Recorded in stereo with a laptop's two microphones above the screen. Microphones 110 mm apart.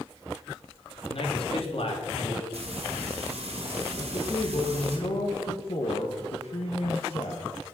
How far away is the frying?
About 1.9 m.